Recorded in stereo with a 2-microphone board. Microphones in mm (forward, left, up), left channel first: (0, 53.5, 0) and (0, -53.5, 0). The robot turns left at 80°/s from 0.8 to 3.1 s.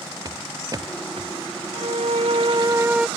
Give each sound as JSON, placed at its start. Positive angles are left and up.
{"t": 0.2, "sound": "footsteps", "side_deg": -35}
{"t": 1.7, "sound": "a violin", "azimuth_deg": -65}